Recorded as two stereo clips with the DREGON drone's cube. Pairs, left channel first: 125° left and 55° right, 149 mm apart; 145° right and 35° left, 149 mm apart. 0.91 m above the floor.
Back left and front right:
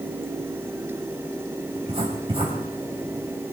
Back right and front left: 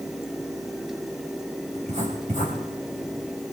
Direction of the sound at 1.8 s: 5° right.